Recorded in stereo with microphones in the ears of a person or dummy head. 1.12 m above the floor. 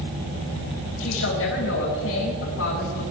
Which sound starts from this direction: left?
A woman speaking, at 1.0 s.